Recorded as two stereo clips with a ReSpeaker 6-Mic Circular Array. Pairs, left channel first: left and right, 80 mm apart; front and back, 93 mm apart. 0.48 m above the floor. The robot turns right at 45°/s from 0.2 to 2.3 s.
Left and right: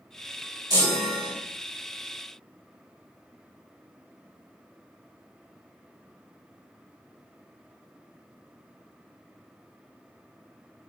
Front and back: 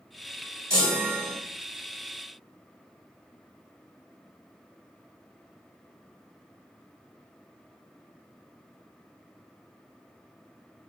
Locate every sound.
0.7 s a chime: 125° right, 1.9 m; by 1.3 s 95° right, 1.9 m